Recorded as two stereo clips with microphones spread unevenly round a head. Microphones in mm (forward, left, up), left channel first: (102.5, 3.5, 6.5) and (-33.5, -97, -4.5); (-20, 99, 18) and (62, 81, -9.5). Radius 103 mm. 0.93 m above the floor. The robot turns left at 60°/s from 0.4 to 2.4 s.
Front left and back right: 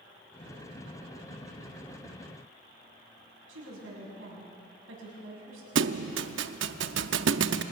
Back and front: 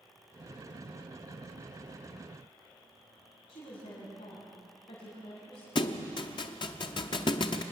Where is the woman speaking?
155° right, 6.5 m.